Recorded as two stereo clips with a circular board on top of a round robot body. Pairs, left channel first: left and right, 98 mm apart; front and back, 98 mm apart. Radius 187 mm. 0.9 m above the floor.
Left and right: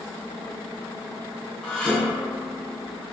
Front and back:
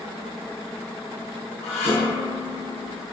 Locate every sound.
1.6 s dishes clattering: 5° left, 6 m